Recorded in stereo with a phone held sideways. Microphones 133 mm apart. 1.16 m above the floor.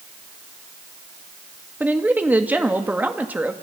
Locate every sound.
1.8 s a woman speaking: 10° right (ahead or behind), 2 m